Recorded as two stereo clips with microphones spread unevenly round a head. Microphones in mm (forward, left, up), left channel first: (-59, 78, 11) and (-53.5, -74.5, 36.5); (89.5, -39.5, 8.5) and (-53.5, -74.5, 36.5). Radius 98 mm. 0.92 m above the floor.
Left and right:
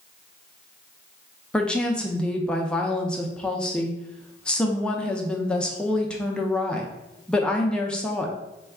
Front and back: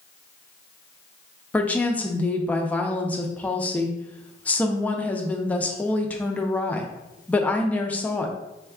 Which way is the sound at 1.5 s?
45° left.